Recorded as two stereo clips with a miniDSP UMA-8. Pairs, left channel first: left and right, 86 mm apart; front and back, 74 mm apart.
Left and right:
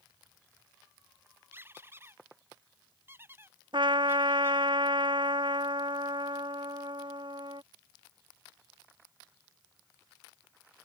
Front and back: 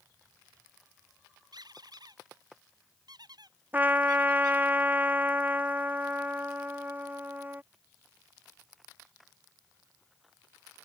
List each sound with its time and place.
1.5 s a squeak: 155° right
3.7 s a trumpet: 115° right